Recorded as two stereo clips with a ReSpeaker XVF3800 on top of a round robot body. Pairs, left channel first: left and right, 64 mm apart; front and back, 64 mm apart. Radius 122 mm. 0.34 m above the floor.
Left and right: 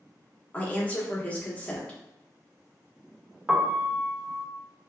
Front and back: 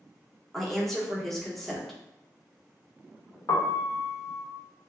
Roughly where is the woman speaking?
Left.